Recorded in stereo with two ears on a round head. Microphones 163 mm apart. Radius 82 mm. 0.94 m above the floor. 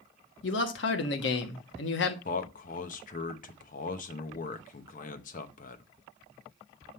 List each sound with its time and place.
0.4 s a man speaking: 70° left (ahead or behind), 1.2 m
2.2 s a man speaking: 45° left (ahead or behind), 0.8 m